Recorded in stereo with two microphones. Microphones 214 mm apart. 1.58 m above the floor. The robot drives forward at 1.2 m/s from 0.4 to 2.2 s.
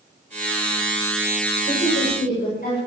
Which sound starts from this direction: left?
A woman speaking, at 1.7 s.